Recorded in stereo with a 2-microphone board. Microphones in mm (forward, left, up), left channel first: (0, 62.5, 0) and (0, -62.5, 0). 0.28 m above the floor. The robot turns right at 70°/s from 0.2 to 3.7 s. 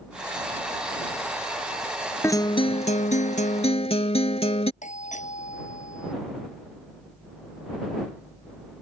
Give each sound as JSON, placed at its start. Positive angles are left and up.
{"t": 2.2, "sound": "a guitar", "azimuth_deg": 20}
{"t": 4.8, "sound": "a doorbell", "side_deg": 75}